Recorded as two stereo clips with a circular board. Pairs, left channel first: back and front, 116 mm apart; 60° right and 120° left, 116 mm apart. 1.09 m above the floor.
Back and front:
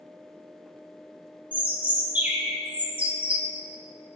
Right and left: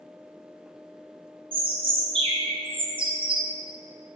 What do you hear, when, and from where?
1.5 s a bird: 80° left, 0.6 m